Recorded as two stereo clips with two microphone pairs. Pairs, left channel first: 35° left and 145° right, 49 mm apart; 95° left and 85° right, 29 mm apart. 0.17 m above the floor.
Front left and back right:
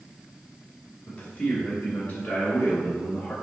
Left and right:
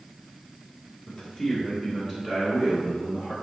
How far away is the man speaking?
About 1.0 m.